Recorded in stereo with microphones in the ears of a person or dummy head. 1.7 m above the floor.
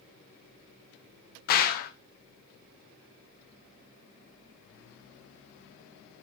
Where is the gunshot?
55° left (ahead or behind), 1.3 m.